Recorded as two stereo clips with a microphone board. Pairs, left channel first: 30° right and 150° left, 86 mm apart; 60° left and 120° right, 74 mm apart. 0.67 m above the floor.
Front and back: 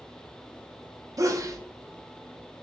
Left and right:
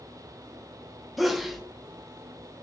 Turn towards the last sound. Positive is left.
turn(degrees=155)